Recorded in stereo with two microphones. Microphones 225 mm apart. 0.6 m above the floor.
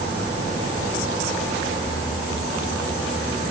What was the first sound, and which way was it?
Only background noise.